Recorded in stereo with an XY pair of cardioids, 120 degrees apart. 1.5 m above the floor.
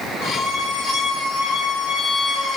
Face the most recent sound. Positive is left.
turn(degrees=55)